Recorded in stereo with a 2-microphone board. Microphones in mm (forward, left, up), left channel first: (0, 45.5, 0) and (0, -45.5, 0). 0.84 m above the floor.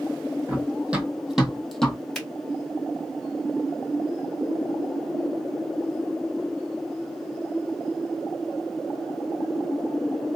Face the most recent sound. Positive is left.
turn(degrees=5)  # may be behind; listen again after turning